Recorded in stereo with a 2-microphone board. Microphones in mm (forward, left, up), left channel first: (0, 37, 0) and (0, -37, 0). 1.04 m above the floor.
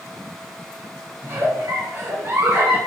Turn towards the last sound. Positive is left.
turn(degrees=-40)  # may be behind; listen again after turning